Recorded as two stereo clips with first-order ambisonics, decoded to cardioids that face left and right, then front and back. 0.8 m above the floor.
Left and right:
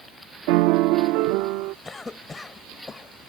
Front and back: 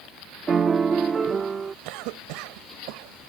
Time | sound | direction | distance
0.5 | a piano | 110° right | ?
1.9 | a cough | 170° left | ?